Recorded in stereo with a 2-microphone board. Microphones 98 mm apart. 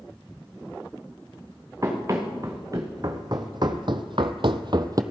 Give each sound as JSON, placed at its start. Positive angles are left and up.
{"t": 1.8, "sound": "running footsteps", "side_deg": -30, "distance_m": 2.0}